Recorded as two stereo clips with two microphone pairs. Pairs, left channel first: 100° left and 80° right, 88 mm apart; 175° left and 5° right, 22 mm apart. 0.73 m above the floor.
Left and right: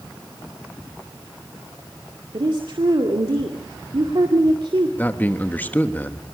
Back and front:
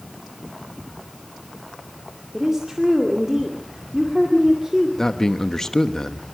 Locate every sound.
2.3 s a woman speaking: 65° right, 2 m
5.0 s a man speaking: 150° left, 1.2 m